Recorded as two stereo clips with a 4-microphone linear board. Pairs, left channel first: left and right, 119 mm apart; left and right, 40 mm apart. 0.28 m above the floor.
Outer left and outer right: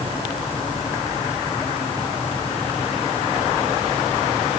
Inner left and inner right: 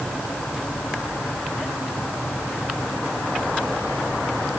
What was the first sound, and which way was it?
Only background noise.